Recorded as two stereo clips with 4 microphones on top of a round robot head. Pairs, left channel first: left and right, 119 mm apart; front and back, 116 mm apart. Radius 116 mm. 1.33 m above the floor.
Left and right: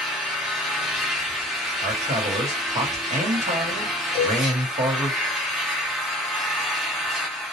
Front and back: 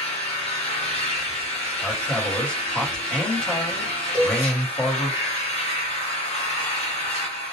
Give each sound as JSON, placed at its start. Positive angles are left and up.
{"t": 0.0, "sound": "an engine running", "azimuth_deg": -5, "distance_m": 0.8}
{"t": 1.8, "sound": "a man speaking", "azimuth_deg": -80, "distance_m": 1.2}
{"t": 4.1, "sound": "a cowbell", "azimuth_deg": -40, "distance_m": 1.6}